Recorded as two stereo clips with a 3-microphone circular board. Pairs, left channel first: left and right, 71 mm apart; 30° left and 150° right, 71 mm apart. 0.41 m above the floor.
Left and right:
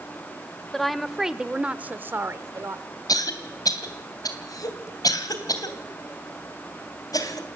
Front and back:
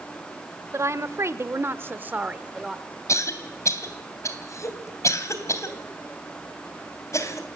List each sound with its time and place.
0.7 s a woman speaking: 175° left, 1.2 m; by 2.8 s 70° right, 1.0 m
3.1 s a cough: 70° left, 3 m